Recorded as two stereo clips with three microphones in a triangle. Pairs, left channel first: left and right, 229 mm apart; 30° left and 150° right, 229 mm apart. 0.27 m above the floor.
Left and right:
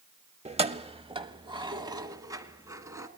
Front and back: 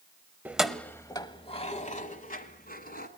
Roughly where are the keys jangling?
Right.